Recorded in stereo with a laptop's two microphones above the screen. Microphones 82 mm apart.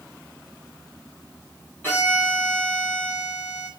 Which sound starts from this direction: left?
A violin, at 1.8 s.